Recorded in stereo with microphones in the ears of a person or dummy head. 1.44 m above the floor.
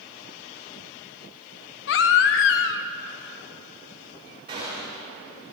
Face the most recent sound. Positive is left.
turn(degrees=-30)  # may be behind; listen again after turning